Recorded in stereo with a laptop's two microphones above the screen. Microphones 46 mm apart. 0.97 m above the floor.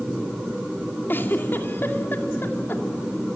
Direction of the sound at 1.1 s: 50° left (ahead or behind).